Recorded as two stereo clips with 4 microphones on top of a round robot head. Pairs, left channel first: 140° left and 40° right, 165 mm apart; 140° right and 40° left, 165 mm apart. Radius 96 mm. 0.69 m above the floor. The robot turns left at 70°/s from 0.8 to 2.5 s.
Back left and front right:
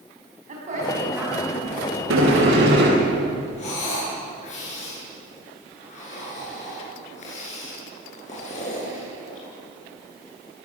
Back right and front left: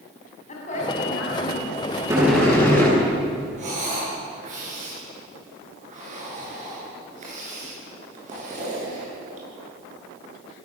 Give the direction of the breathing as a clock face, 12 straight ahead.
9 o'clock.